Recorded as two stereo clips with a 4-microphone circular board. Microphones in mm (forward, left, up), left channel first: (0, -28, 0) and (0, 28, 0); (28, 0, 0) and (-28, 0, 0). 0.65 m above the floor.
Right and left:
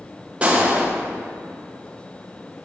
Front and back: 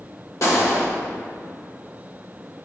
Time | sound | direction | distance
0.4 | a gunshot | 20° left | 1.2 m